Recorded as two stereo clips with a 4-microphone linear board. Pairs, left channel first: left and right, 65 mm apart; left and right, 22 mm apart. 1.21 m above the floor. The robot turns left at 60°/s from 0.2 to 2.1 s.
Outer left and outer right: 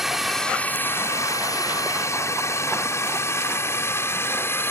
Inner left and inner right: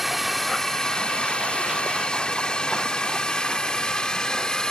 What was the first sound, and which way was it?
A drone, 5° right (ahead or behind).